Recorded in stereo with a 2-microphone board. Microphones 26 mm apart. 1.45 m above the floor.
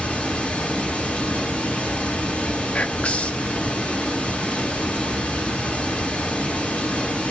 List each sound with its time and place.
0.0 s running water: 75° left (ahead or behind), 4 m
2.7 s whispering: 60° left (ahead or behind), 0.6 m